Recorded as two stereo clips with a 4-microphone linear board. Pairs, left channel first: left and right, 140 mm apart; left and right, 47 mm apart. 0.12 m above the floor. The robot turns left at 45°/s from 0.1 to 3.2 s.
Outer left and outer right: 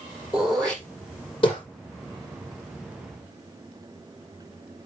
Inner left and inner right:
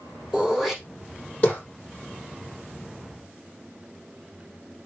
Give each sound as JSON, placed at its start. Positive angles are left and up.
{"t": 0.3, "sound": "throat clearing", "side_deg": -10, "distance_m": 4.5}